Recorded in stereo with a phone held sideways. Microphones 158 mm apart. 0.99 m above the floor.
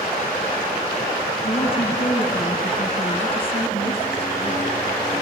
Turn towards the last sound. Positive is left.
turn(degrees=35)  # may be behind; listen again after turning